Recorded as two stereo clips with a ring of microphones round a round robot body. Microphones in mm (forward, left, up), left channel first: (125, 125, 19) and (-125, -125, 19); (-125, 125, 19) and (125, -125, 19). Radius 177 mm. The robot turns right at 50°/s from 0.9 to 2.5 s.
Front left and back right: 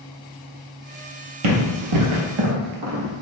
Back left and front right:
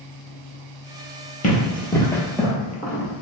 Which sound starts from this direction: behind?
Running footsteps, at 1.4 s.